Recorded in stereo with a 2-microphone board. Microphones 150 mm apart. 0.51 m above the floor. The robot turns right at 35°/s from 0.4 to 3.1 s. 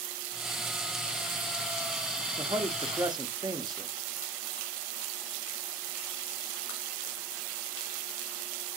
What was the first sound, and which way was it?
A man speaking, 35° right (ahead or behind).